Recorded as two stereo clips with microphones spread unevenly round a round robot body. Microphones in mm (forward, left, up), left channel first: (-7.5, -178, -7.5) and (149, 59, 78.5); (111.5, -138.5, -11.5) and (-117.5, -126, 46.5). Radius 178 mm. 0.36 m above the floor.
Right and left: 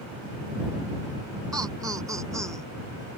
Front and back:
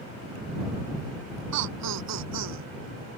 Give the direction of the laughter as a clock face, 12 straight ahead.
7 o'clock.